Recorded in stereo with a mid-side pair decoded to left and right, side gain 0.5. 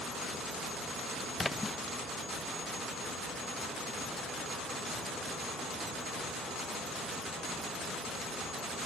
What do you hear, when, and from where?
1.4 s a splash: 15° left